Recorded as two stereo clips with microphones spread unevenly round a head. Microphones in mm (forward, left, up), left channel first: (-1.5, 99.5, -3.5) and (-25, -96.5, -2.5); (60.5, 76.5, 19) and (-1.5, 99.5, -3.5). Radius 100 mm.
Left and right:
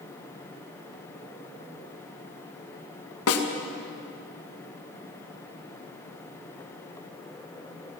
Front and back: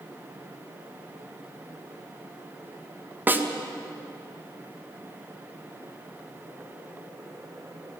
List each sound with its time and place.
3.3 s a snare drum: 95° left, 1.9 m